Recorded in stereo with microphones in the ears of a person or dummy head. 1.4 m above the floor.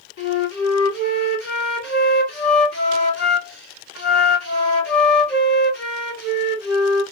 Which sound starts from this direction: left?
A flute, at 0.2 s.